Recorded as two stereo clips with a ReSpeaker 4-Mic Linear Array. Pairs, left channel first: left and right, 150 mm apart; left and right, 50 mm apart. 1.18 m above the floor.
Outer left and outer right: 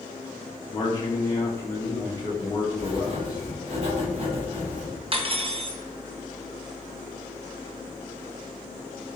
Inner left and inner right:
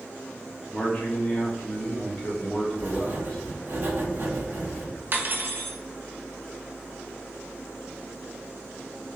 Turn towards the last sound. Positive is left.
turn(degrees=-40)  # may be behind; listen again after turning